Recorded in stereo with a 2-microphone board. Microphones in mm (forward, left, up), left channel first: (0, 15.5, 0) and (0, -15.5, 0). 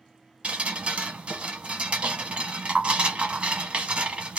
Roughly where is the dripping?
Right.